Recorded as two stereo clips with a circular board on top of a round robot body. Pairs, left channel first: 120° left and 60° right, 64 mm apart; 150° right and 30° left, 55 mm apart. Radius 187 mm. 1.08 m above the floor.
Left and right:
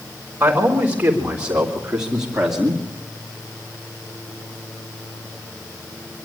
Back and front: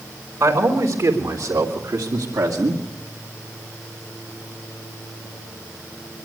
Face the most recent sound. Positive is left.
turn(degrees=30)